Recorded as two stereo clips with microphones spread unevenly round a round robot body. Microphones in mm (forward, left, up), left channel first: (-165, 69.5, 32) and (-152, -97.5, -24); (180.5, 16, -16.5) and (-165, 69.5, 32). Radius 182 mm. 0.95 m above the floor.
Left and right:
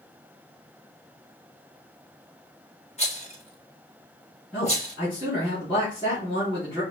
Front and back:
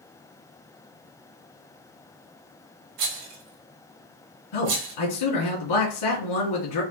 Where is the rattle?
150° left, 1.9 m.